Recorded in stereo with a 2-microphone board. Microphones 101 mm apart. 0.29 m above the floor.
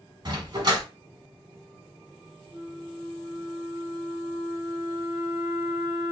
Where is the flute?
15° right (ahead or behind), 1.1 m.